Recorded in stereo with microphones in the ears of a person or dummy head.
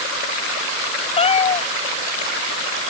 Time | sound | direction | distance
1.2 | a cat meowing | 30° left (ahead or behind) | ?